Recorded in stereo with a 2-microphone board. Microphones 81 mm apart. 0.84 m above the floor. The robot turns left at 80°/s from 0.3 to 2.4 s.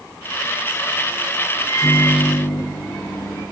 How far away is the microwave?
About 6.5 m.